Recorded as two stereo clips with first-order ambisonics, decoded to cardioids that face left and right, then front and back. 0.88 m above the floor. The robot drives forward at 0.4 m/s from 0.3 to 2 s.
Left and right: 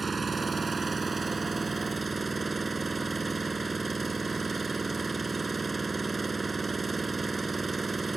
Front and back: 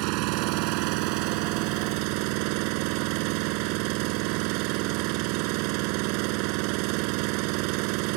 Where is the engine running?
165° right.